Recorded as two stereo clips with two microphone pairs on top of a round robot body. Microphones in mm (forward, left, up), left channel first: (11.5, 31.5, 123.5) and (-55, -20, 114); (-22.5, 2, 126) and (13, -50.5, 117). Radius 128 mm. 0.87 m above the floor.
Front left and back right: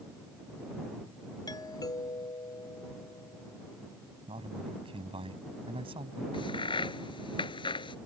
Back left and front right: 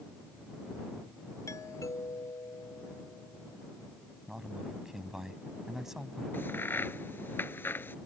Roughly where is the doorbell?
Left.